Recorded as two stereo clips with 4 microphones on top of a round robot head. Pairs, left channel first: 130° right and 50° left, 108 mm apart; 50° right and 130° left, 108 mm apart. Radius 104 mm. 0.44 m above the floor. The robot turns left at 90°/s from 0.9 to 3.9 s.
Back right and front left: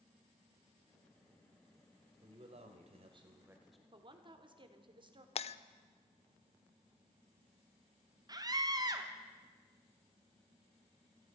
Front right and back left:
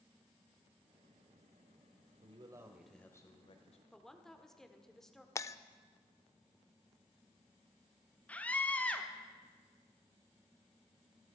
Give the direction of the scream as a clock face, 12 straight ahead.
11 o'clock.